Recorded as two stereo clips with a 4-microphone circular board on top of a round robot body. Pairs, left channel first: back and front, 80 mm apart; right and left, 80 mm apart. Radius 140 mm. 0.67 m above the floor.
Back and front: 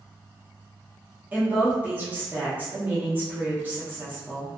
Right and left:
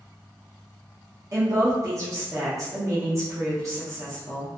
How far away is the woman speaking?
About 0.8 m.